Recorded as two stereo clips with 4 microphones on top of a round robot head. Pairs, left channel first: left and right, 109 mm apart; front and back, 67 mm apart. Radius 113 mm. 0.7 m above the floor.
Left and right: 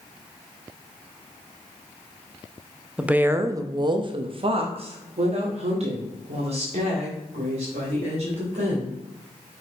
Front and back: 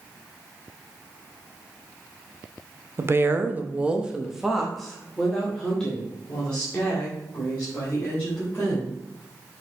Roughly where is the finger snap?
I don't hear a finger snap.